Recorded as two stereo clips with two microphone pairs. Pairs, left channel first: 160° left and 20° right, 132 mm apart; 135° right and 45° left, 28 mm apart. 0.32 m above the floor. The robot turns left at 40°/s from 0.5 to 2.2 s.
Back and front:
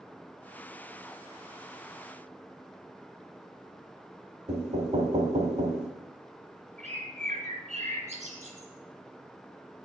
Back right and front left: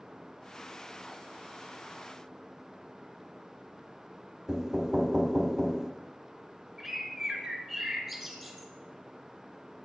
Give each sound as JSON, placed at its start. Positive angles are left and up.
{"t": 4.5, "sound": "knocking", "azimuth_deg": -40, "distance_m": 1.0}
{"t": 6.8, "sound": "a bird", "azimuth_deg": -45, "distance_m": 2.0}